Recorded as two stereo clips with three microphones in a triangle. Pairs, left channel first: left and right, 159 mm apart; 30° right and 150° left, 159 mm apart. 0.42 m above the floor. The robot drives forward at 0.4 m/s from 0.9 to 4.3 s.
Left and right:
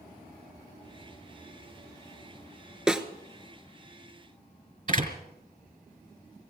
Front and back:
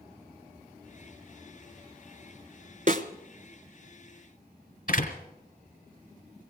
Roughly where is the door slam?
Ahead right.